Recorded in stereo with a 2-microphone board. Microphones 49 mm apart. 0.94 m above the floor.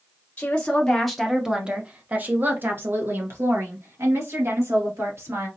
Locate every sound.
0.4 s a woman speaking: 30° left (ahead or behind), 0.8 m; by 5.5 s 70° right (ahead or behind), 2.5 m